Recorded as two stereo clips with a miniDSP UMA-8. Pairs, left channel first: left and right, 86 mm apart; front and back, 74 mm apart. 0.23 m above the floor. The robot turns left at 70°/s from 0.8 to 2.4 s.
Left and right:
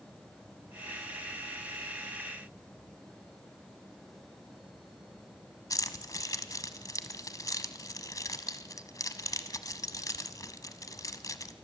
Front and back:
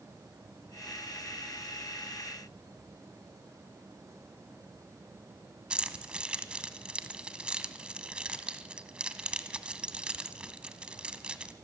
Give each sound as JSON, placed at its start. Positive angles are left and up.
{"t": 5.7, "sound": "keys jangling", "azimuth_deg": 110, "distance_m": 0.9}